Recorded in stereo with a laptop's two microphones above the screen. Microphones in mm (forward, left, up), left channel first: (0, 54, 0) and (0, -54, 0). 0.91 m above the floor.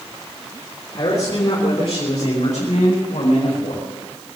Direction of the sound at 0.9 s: 60° left (ahead or behind).